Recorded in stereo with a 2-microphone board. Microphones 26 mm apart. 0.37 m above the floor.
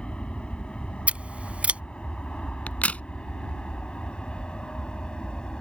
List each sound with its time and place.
0.0 s an aircraft: 50° left (ahead or behind); by 5.6 s 40° left (ahead or behind)
1.1 s scissors: 65° right (ahead or behind)
2.7 s a crack: 85° left